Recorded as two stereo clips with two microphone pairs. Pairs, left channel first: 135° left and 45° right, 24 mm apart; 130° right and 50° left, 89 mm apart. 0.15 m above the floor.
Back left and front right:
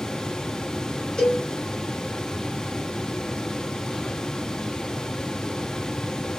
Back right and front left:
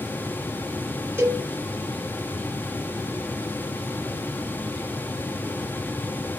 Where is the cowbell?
95° left, 2.5 m.